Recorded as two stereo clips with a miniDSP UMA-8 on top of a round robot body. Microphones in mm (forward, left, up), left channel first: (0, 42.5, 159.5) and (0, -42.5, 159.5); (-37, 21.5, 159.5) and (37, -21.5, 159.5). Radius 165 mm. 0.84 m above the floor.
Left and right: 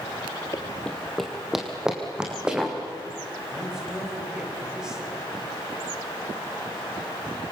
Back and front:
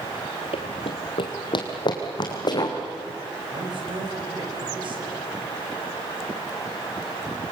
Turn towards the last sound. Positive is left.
turn(degrees=-5)